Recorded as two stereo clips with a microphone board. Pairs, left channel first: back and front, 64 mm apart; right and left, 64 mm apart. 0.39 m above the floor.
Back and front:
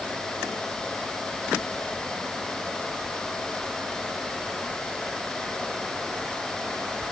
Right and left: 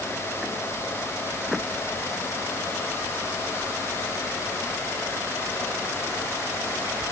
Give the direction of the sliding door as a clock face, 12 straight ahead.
I don't hear a sliding door.